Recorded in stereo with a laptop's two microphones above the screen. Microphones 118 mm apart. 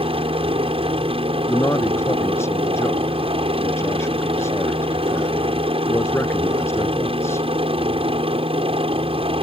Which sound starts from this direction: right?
A helicopter, at 0.0 s.